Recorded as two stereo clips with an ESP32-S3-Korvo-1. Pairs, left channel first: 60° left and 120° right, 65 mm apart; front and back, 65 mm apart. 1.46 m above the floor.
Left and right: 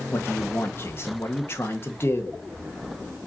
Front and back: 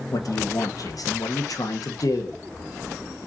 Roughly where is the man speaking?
Ahead.